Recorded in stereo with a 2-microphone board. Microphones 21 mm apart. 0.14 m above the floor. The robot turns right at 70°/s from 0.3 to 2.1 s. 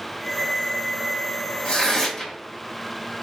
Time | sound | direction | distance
1.6 | tearing paper | 120° left | 1.1 m